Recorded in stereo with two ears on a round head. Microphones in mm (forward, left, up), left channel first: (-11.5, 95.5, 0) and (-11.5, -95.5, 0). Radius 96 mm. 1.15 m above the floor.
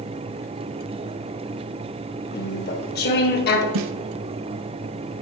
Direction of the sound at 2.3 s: 45° left (ahead or behind).